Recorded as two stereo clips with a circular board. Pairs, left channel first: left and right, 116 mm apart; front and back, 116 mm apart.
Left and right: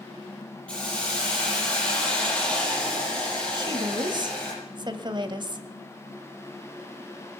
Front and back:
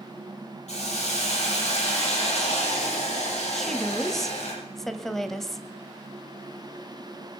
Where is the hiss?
10° left, 6.5 m.